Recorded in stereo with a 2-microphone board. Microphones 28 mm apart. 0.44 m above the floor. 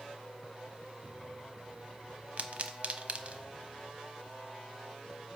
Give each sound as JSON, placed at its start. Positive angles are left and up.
{"t": 2.4, "sound": "a pop", "side_deg": -50, "distance_m": 0.9}